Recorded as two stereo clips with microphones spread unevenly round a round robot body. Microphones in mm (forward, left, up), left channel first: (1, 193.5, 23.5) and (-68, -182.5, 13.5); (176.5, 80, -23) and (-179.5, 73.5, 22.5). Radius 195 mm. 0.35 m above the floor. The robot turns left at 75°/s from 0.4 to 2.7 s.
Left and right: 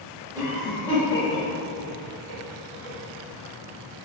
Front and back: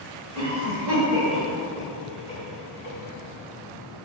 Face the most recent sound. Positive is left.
turn(degrees=15)